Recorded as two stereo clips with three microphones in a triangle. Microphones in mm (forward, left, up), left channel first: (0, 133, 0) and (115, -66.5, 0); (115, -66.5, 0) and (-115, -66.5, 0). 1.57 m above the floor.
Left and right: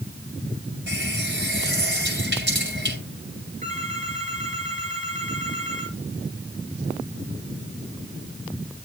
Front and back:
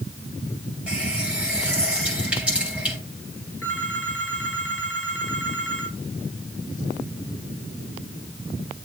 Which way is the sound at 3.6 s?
Straight ahead.